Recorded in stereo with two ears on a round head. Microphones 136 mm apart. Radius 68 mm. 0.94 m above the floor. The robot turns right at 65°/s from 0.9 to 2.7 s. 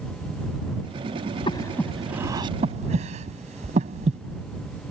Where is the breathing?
35° left (ahead or behind); by 4.2 s 50° right (ahead or behind).